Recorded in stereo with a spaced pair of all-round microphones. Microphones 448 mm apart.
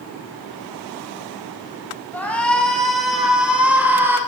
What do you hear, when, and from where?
2.1 s a shout: 5° left (ahead or behind), 8 m; by 4.2 s 5° right (ahead or behind), 9 m